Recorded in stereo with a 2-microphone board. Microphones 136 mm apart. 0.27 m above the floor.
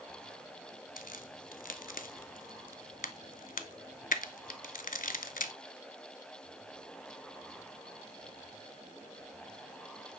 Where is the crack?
80° left, 0.6 m.